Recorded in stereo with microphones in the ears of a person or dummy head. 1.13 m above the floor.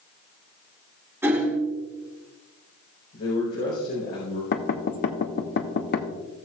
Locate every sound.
1.2 s hammering: 10° right (ahead or behind), 3.5 m
3.1 s a man speaking: 55° left (ahead or behind), 4 m
4.5 s knocking: 55° left (ahead or behind), 1.0 m